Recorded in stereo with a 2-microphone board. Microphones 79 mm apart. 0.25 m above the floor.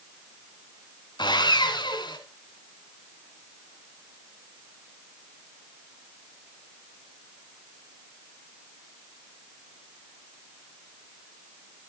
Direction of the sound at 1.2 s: 65° left (ahead or behind).